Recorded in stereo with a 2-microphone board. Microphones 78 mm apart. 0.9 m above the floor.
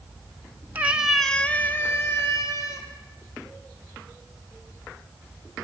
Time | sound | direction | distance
0.8 | a cat meowing | 25° right (ahead or behind) | 1.3 m